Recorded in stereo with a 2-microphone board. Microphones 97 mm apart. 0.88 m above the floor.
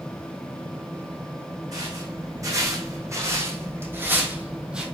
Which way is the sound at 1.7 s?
40° right (ahead or behind).